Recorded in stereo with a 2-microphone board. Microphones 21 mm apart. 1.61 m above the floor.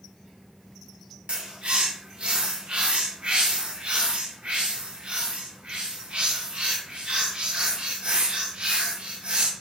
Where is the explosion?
No explosion in this recording.